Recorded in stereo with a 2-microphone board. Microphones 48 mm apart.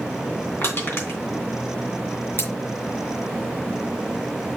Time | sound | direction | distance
0.6 | crushing | 55° left (ahead or behind) | 3 m
2.4 | scissors | 50° left (ahead or behind) | 4 m